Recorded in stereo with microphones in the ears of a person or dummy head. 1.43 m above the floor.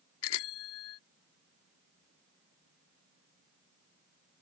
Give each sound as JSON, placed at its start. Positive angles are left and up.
{"t": 0.2, "sound": "a bicycle bell", "side_deg": 75}